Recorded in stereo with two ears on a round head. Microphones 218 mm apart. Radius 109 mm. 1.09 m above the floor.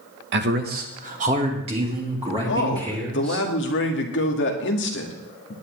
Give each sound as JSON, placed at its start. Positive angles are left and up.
{"t": 0.3, "sound": "a man speaking", "side_deg": -45, "distance_m": 1.1}
{"t": 2.5, "sound": "a man speaking", "side_deg": 50, "distance_m": 1.9}